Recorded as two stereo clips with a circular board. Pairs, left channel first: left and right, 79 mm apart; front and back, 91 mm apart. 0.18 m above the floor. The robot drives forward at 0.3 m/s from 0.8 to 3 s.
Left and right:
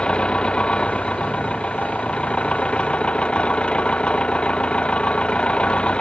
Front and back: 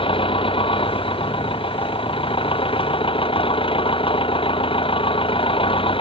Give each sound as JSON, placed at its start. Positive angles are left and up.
{"t": 0.0, "sound": "an engine running", "azimuth_deg": 15}